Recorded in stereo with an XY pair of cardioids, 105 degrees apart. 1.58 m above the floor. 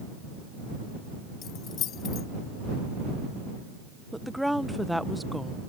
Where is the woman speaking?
Straight ahead.